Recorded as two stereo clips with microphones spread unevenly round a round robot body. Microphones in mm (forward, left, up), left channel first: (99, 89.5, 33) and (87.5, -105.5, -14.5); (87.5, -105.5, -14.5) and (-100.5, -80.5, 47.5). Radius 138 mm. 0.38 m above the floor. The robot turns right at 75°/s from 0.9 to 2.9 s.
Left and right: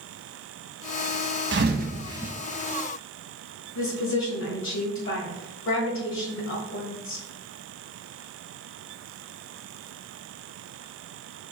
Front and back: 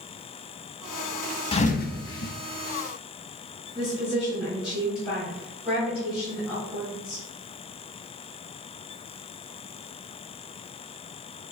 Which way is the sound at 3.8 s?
75° left.